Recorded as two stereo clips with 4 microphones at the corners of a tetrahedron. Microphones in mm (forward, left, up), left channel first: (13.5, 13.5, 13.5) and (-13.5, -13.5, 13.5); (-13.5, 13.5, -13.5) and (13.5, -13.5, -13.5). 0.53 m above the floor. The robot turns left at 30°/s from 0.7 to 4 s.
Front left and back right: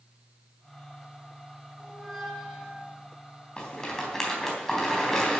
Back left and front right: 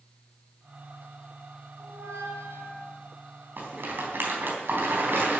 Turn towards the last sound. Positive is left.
turn(degrees=-30)